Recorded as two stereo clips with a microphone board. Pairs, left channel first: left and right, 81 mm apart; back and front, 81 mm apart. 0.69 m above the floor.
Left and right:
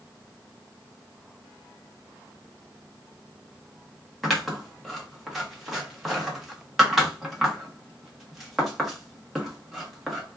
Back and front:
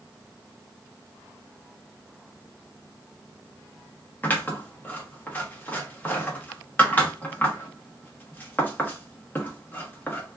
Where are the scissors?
Straight behind, 1.1 m.